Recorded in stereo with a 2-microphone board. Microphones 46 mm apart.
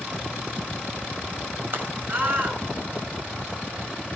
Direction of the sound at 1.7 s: 45° right (ahead or behind).